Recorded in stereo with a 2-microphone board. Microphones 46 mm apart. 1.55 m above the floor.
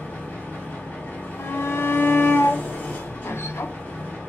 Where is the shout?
60° left (ahead or behind), 0.5 m.